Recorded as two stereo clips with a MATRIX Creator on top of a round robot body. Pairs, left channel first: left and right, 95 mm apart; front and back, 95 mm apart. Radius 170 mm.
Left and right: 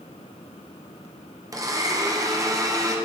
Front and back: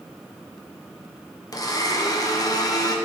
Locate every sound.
1.5 s a blender: 45° right, 1.2 m